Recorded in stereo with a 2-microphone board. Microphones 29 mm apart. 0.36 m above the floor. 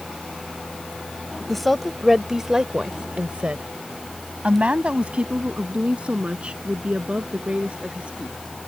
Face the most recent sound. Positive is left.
turn(degrees=-45)  # may be behind; listen again after turning